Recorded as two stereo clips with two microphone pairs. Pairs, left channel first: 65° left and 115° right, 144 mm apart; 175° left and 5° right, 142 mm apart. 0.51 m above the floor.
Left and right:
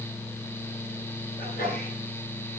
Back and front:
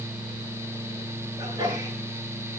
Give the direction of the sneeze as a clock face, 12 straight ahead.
10 o'clock.